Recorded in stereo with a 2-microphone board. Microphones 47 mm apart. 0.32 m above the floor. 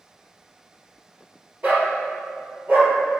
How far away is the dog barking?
About 2 m.